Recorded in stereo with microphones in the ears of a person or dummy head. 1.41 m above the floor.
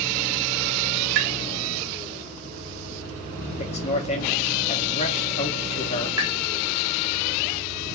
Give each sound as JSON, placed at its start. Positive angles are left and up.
{"t": 1.1, "sound": "tapping", "side_deg": -70, "distance_m": 1.6}
{"t": 3.6, "sound": "a man speaking", "side_deg": 30, "distance_m": 1.6}
{"t": 6.2, "sound": "tapping", "side_deg": -20, "distance_m": 1.1}